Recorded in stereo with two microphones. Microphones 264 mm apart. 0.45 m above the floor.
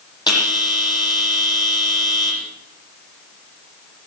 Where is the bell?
15° left (ahead or behind), 9 m.